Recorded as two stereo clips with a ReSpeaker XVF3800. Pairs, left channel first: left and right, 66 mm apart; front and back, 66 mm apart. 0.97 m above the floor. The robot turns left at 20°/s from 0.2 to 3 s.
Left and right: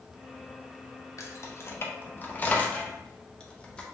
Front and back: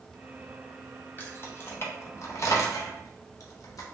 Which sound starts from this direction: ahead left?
Keys jangling, at 1.2 s.